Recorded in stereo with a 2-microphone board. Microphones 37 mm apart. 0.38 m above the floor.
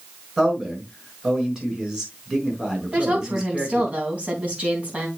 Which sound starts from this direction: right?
A woman speaking, at 2.9 s.